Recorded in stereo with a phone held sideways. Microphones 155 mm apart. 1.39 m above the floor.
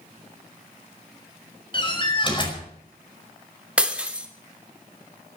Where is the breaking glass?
5° right (ahead or behind), 2.5 m.